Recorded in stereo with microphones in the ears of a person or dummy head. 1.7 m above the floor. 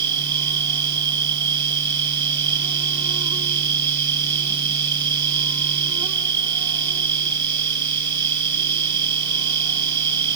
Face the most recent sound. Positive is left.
turn(degrees=-25)  # may be behind; listen again after turning